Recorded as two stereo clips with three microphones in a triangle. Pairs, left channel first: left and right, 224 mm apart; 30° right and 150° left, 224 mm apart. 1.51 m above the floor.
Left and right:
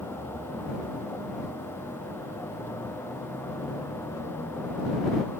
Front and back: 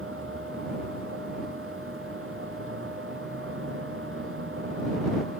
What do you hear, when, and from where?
0.0 s a vehicle: 170° left